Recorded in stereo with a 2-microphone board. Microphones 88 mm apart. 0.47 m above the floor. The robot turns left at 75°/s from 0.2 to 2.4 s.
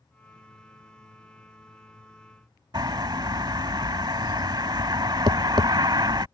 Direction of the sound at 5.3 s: 60° right (ahead or behind).